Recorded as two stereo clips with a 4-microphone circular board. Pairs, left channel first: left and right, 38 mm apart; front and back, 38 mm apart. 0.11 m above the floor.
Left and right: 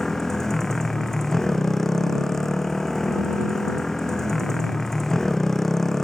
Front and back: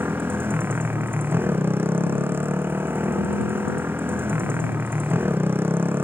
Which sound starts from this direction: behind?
A motorcycle, at 0.0 s.